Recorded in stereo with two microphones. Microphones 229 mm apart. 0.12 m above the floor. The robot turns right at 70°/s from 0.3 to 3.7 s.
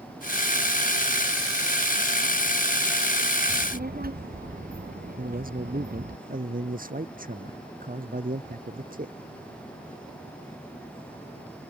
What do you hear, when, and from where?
3.5 s a child speaking: 55° right (ahead or behind); by 6.2 s 40° right (ahead or behind)
5.2 s a man speaking: 40° right (ahead or behind)